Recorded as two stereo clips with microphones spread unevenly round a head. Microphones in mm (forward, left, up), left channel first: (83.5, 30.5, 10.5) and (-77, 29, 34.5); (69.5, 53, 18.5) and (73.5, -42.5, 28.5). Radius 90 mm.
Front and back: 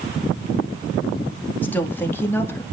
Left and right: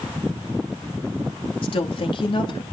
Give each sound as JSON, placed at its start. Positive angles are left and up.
{"t": 1.6, "sound": "a woman speaking", "azimuth_deg": 75, "distance_m": 2.5}